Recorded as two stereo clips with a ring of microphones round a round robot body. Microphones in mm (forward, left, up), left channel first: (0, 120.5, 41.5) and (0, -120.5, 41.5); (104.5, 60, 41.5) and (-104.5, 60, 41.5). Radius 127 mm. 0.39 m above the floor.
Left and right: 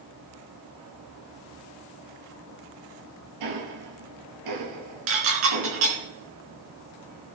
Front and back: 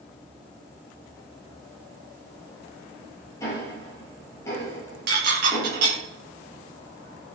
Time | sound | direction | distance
3.4 | ticking | 80° right | 2.5 m
5.1 | dishes clattering | 125° right | 3.5 m